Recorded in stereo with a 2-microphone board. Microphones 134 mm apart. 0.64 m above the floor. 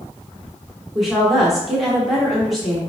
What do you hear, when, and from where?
0.9 s a woman speaking: centre (ahead or behind), 0.9 m